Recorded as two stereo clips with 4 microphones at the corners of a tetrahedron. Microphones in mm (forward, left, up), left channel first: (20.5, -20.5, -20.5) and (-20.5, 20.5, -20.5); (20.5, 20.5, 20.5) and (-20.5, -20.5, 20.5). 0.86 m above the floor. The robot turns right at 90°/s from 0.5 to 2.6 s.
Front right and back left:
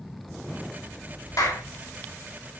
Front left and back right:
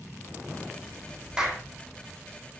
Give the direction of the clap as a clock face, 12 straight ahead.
2 o'clock.